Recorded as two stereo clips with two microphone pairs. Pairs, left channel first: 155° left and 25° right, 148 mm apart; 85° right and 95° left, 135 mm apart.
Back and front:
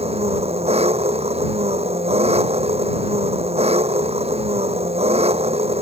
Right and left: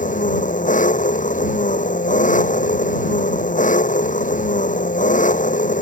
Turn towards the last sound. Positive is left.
turn(degrees=-70)